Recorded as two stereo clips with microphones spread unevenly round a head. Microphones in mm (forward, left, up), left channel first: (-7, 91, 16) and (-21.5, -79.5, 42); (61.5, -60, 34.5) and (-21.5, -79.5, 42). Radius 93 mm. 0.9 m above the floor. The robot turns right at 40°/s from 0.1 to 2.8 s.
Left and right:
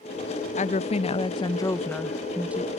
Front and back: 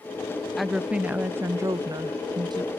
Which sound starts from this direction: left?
A woman speaking, at 0.6 s.